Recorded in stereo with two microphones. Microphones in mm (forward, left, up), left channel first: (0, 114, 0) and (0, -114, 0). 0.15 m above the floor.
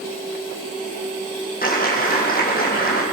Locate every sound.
1.6 s a clap: 40° left (ahead or behind), 6.5 m